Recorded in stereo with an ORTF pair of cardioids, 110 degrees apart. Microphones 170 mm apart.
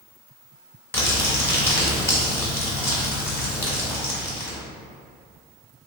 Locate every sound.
0.9 s crumpling: 15° left, 1.0 m